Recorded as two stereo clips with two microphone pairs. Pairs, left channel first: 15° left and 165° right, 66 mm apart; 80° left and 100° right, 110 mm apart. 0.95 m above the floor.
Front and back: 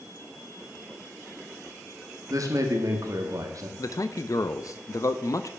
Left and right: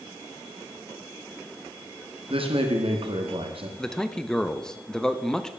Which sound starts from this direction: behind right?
A man speaking, at 2.3 s.